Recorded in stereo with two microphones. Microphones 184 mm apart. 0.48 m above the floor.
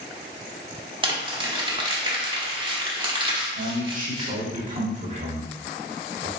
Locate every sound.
1.0 s crumpling: 25° right (ahead or behind), 1.0 m
3.5 s a man speaking: 40° right (ahead or behind), 1.4 m